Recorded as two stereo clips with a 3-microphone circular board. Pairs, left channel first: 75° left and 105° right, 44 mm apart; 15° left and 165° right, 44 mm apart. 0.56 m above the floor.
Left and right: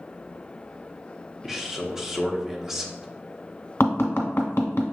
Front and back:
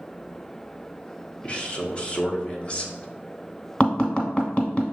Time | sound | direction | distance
1.4 | a man speaking | 30° right | 0.8 m
3.8 | tapping | 80° left | 0.9 m